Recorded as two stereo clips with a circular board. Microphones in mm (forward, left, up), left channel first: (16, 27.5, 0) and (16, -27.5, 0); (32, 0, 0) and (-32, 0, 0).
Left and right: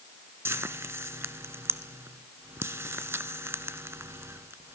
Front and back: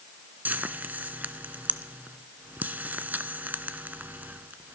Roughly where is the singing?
No singing in this recording.